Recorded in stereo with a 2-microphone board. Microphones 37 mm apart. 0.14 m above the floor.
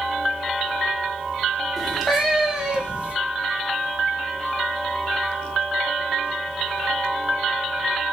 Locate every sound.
1.8 s a cat meowing: 5° right (ahead or behind), 1.5 m; by 3.1 s 40° right (ahead or behind), 0.8 m